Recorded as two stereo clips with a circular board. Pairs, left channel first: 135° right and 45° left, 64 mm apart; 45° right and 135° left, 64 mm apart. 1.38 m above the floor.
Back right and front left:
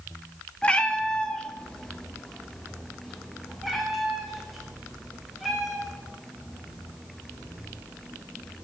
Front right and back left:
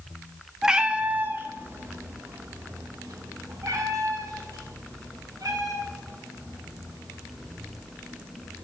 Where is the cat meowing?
160° right, 0.8 m; by 8.7 s 130° left, 4.5 m.